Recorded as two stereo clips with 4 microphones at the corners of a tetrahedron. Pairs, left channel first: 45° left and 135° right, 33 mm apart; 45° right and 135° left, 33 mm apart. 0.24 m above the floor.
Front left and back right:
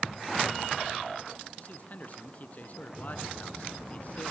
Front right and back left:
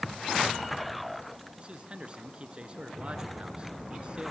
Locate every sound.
1.6 s a man speaking: 85° left, 3 m